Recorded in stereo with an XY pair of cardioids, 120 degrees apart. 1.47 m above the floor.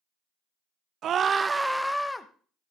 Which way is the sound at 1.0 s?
60° right.